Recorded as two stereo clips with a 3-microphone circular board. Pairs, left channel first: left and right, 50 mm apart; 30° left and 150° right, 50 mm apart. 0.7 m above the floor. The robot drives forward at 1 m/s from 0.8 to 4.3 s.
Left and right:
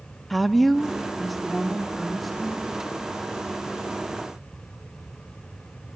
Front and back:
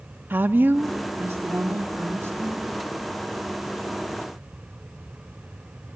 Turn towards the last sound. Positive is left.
turn(degrees=180)